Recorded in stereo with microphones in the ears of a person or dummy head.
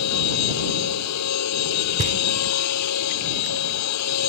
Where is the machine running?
85° left.